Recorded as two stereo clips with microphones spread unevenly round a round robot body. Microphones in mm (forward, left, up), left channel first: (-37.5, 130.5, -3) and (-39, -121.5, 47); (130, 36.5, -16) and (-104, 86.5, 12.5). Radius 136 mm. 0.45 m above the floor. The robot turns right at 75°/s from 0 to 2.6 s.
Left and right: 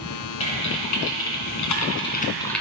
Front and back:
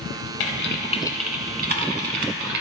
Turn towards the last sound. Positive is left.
turn(degrees=180)